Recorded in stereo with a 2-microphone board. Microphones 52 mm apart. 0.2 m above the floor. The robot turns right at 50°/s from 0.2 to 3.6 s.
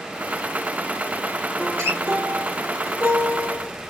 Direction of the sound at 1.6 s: 40° right (ahead or behind).